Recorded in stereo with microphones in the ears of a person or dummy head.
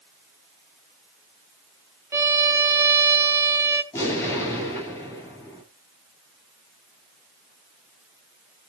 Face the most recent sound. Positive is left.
turn(degrees=15)  # may be behind; listen again after turning